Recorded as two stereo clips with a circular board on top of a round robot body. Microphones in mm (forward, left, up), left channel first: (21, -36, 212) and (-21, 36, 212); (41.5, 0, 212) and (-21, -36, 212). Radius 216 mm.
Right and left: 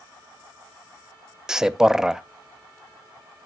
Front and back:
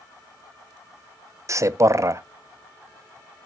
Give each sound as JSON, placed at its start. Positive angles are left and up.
{"t": 1.5, "sound": "a man speaking", "azimuth_deg": -160, "distance_m": 0.9}